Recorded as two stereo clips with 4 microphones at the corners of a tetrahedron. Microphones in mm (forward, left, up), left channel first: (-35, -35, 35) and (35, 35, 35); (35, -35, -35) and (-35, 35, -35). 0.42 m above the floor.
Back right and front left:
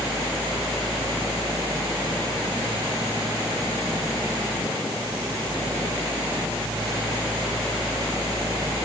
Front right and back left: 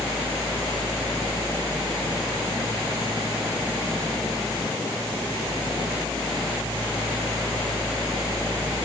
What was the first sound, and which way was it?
Only background noise.